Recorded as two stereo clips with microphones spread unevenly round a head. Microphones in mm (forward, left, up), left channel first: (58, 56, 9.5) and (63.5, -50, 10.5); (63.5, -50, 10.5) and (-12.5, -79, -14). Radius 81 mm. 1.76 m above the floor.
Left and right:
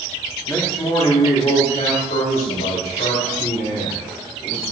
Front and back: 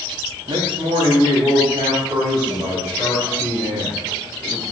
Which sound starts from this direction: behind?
A man speaking, at 0.5 s.